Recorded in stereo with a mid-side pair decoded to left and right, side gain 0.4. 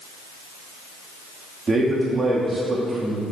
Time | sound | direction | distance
1.7 | a man speaking | 40° right | 3 m